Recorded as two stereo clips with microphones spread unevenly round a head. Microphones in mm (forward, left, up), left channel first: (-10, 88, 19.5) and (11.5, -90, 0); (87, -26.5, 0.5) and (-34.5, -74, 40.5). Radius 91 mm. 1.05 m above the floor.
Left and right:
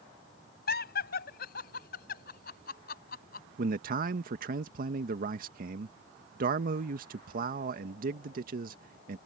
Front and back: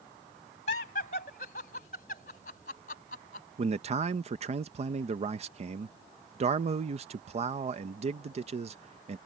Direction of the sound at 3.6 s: 115° right.